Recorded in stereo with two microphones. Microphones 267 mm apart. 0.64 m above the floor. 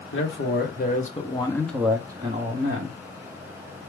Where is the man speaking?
50° left (ahead or behind), 1.6 m; by 3.0 s 40° right (ahead or behind), 1.4 m.